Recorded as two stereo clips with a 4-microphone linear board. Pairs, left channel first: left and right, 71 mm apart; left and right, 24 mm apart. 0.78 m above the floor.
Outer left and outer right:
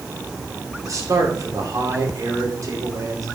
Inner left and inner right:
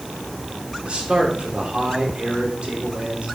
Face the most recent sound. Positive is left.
turn(degrees=-50)  # may be behind; listen again after turning